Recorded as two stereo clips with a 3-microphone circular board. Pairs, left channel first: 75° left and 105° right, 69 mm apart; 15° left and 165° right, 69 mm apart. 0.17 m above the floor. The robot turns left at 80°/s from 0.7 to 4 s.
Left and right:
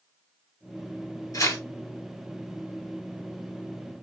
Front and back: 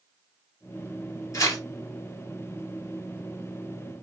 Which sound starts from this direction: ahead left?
Tearing paper, at 1.3 s.